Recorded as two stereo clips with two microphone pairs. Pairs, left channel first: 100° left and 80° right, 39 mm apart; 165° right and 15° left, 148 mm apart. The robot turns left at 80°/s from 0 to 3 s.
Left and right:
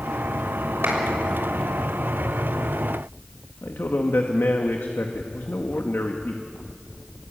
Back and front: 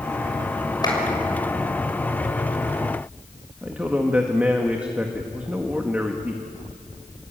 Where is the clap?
100° right, 6.5 m; by 1.0 s 115° right, 6.5 m.